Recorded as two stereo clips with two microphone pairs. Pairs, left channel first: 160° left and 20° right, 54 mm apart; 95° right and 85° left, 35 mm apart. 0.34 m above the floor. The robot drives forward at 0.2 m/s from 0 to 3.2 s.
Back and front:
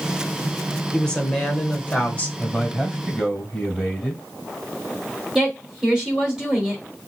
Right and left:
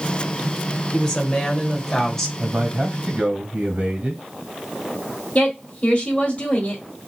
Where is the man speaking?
85° left, 1.6 m; by 4.2 s 95° left, 1.6 m.